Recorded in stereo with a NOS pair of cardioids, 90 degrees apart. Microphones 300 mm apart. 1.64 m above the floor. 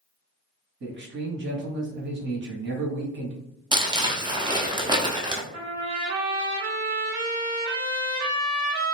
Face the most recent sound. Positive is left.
turn(degrees=-60)